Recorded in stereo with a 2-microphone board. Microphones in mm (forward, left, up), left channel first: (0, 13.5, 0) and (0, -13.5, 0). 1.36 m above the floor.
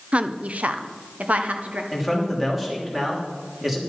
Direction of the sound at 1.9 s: 10° right (ahead or behind).